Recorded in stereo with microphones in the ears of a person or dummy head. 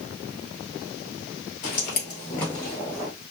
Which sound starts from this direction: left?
Footsteps, at 1.6 s.